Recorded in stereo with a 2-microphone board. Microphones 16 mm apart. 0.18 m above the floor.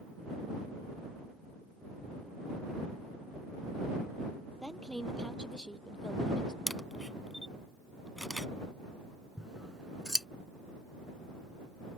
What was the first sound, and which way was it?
A woman speaking, 50° left (ahead or behind).